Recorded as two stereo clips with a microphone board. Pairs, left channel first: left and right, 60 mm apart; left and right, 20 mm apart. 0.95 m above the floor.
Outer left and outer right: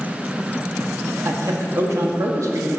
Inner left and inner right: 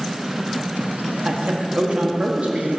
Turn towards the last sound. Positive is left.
turn(degrees=-65)  # may be behind; listen again after turning